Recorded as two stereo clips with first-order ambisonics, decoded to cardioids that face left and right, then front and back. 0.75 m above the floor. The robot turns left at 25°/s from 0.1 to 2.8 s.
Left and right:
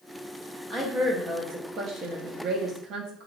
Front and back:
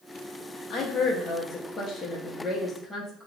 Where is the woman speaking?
35° right, 0.7 m; by 3.3 s 90° right, 0.7 m.